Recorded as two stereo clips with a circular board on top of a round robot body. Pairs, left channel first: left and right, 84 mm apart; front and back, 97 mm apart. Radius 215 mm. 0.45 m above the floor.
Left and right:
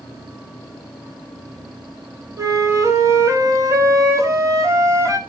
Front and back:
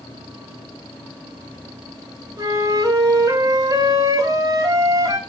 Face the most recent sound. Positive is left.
turn(degrees=-135)